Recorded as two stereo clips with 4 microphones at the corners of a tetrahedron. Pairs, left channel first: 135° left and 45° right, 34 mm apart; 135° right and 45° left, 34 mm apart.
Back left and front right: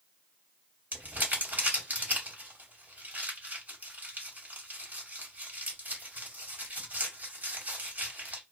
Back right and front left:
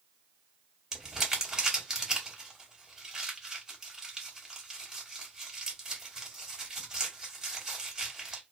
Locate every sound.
0.9 s crumpling: 30° right, 1.2 m